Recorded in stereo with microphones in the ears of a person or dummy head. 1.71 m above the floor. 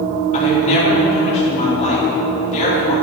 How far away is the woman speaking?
About 3.5 m.